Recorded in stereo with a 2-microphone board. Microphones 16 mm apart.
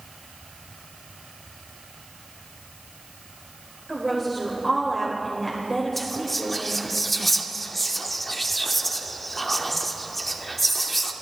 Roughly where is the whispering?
Centre.